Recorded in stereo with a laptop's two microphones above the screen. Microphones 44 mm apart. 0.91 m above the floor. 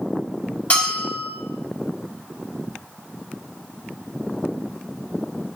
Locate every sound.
0.7 s a bell: 30° left (ahead or behind), 3.5 m